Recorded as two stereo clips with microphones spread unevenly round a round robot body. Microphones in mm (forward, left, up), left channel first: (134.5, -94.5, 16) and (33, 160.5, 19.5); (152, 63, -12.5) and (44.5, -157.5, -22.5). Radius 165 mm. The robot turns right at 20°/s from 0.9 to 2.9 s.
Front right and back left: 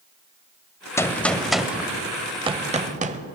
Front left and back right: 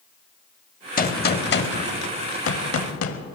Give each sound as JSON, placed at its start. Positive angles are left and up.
{"t": 1.0, "sound": "a gunshot", "azimuth_deg": 10, "distance_m": 0.9}